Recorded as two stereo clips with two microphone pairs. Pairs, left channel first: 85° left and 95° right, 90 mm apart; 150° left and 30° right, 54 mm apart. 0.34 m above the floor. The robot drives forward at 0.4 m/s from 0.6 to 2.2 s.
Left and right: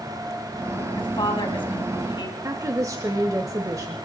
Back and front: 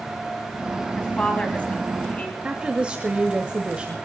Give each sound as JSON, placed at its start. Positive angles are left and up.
{"t": 0.9, "sound": "a woman speaking", "azimuth_deg": 85, "distance_m": 3.0}
{"t": 2.4, "sound": "a woman speaking", "azimuth_deg": -90, "distance_m": 1.2}